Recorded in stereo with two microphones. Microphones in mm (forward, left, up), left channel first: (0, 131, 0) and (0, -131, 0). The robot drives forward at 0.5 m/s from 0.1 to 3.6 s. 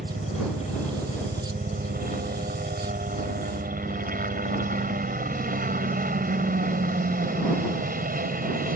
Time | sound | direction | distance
0.0 | a helicopter | 35° right (ahead or behind) | ?